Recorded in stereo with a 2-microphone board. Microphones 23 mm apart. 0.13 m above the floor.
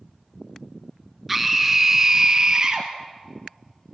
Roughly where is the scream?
Centre.